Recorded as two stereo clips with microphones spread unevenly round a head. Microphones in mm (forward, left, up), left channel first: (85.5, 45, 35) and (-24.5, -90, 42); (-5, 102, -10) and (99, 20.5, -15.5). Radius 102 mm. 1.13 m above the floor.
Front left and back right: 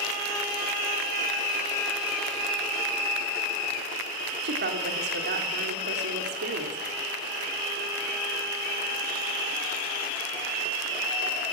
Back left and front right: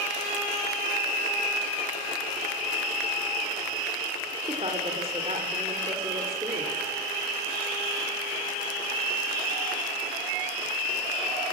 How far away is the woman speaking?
About 3 m.